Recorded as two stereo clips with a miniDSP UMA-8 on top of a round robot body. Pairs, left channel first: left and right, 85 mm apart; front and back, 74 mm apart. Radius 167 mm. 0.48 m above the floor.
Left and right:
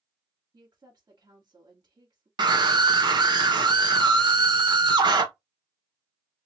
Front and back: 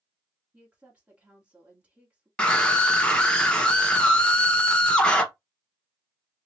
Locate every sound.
0.5 s a woman speaking: 110° right, 2.0 m
2.4 s a scream: 75° right, 1.6 m